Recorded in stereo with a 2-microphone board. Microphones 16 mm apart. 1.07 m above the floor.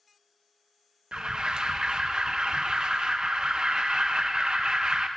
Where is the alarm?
70° right (ahead or behind), 0.6 m.